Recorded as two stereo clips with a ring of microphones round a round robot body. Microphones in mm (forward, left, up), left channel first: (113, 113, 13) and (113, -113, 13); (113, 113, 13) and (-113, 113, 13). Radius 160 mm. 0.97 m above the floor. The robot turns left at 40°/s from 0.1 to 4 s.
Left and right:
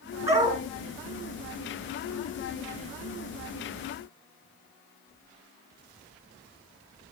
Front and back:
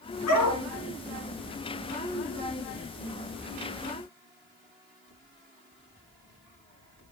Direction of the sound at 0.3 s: 10° right.